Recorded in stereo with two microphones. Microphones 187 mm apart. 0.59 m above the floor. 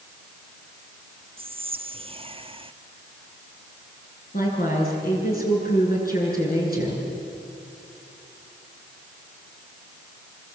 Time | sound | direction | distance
1.4 | whispering | 30° right (ahead or behind) | 0.7 m
4.3 | a woman speaking | 50° left (ahead or behind) | 7.5 m